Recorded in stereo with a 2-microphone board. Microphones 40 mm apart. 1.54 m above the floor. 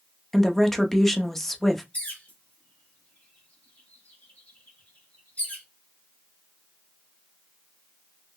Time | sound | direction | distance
0.3 | a woman speaking | 5° left (ahead or behind) | 0.6 m
1.9 | a bird | 40° left (ahead or behind) | 1.1 m